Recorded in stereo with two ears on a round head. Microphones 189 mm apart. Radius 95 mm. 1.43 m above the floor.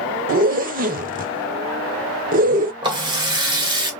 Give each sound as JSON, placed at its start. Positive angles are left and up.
{"t": 0.3, "sound": "a zipper", "side_deg": -40, "distance_m": 0.6}
{"t": 2.8, "sound": "a running tap", "side_deg": -20, "distance_m": 1.3}